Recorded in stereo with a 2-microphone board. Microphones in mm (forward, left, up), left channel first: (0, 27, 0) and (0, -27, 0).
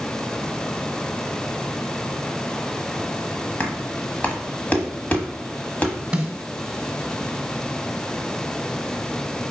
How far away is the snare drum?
About 1.1 m.